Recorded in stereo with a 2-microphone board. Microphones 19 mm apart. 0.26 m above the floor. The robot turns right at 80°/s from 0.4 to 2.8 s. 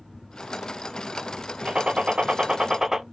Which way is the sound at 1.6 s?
120° right.